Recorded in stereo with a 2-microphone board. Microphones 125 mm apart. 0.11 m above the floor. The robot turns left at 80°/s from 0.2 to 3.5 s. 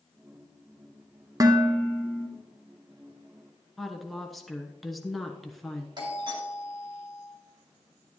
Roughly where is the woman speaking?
Centre.